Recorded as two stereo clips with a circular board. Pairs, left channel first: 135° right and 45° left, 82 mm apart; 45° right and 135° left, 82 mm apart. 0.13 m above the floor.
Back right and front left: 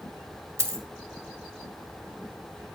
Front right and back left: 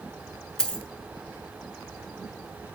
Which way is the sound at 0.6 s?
30° left.